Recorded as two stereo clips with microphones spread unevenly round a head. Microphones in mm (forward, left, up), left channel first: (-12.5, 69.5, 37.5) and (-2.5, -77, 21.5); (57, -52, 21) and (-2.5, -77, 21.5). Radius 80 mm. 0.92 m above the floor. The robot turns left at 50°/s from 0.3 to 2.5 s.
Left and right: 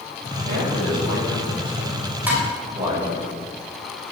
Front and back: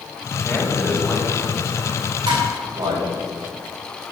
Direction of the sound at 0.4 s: 50° right.